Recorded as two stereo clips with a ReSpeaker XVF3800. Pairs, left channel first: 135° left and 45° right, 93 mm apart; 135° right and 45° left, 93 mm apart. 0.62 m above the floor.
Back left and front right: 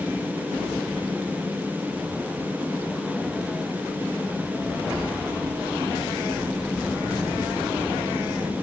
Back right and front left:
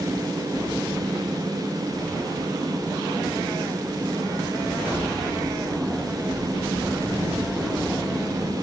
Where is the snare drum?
No snare drum in this recording.